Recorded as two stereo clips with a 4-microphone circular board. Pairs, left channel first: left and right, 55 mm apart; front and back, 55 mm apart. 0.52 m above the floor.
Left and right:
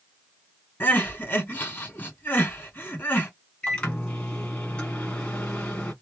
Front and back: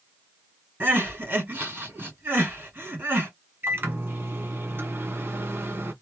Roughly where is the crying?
Behind left.